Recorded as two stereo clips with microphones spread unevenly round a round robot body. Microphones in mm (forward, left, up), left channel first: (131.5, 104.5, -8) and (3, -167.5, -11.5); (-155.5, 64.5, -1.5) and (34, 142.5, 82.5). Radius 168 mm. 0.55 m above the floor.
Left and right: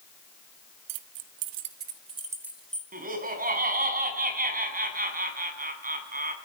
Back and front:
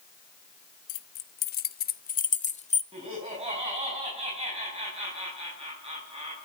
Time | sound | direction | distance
0.9 | keys jangling | 130° right | 0.8 m
2.9 | laughter | 55° right | 6 m